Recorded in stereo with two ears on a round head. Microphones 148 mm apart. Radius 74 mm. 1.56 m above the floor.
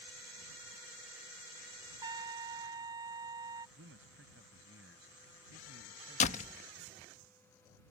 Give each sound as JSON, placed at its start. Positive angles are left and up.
{"t": 2.0, "sound": "a trumpet", "side_deg": -25}
{"t": 3.8, "sound": "a man speaking", "side_deg": -90}
{"t": 6.2, "sound": "a door slam", "side_deg": 45}